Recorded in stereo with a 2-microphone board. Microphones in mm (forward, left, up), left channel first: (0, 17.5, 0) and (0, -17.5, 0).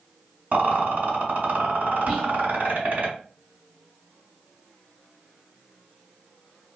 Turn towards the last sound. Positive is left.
turn(degrees=0)  # may be behind; listen again after turning